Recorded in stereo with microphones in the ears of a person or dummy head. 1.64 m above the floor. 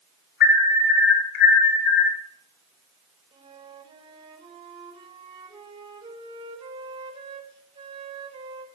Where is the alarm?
60° left (ahead or behind), 3.5 m.